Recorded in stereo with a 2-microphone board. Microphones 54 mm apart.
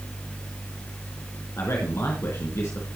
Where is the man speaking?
55° left (ahead or behind), 4 m.